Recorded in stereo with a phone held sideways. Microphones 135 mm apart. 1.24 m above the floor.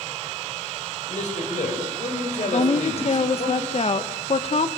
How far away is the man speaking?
About 6.5 m.